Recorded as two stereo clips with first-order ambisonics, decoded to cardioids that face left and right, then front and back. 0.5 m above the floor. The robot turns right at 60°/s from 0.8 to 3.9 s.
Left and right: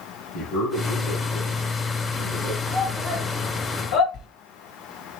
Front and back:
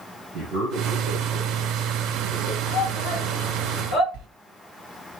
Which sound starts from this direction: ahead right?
A shout, at 2.7 s.